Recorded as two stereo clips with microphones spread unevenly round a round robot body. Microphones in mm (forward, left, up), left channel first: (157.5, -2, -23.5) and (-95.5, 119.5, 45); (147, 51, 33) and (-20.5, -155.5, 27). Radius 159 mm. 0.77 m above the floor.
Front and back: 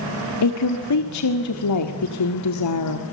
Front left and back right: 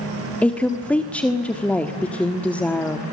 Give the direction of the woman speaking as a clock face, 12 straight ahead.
1 o'clock.